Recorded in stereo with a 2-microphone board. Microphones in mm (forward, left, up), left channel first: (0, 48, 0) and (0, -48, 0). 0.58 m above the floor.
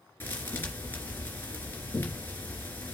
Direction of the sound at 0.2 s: 20° left (ahead or behind).